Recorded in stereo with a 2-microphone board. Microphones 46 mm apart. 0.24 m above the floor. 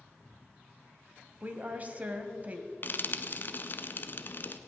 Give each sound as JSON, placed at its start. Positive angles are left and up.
{"t": 1.4, "sound": "a woman speaking", "side_deg": -35, "distance_m": 1.1}
{"t": 2.8, "sound": "frying", "side_deg": 45, "distance_m": 0.7}